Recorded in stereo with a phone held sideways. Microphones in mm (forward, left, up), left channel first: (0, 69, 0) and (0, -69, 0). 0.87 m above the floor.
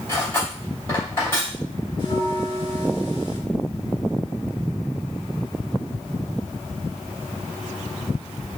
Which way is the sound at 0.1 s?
20° left (ahead or behind).